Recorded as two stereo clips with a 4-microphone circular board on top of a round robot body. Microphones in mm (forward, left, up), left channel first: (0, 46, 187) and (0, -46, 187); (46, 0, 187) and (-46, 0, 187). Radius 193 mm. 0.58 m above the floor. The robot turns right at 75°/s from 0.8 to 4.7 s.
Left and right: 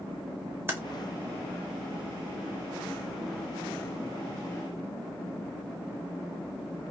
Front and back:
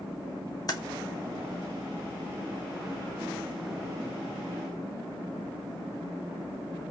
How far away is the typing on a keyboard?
About 1.0 m.